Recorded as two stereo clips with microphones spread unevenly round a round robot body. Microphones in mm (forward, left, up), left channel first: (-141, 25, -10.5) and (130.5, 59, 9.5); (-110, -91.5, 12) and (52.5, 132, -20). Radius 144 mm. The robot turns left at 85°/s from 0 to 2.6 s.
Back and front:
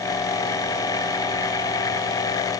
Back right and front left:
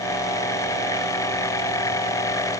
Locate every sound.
Only background noise.